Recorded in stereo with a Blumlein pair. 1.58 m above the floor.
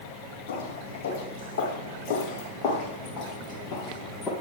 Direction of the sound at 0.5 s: 60° left.